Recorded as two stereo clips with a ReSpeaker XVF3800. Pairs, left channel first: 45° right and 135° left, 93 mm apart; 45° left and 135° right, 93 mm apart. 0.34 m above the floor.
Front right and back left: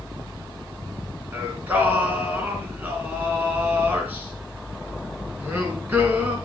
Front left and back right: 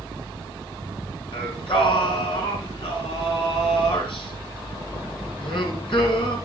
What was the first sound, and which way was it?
Singing, 65° left.